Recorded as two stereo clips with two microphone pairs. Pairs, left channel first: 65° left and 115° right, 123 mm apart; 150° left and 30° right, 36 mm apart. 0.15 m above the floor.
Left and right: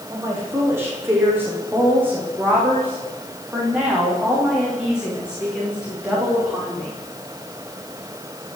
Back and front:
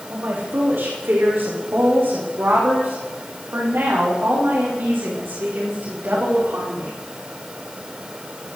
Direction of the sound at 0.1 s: 45° right.